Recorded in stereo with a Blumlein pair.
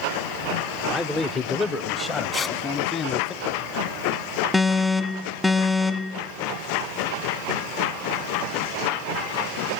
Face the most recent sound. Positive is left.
turn(degrees=5)